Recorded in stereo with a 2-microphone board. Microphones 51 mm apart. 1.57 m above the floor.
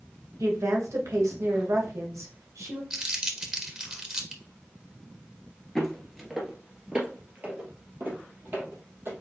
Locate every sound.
0.4 s a woman speaking: 75° right (ahead or behind), 1.3 m
2.9 s crumpling: 20° right (ahead or behind), 1.1 m
5.8 s footsteps: centre (ahead or behind), 1.6 m; by 9.1 s 50° right (ahead or behind), 3 m